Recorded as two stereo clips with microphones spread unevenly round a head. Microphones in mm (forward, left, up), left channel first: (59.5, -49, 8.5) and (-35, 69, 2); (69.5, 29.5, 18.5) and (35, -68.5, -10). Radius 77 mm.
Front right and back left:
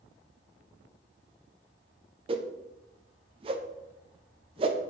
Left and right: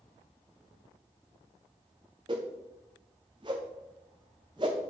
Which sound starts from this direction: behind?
A whoosh, at 2.3 s.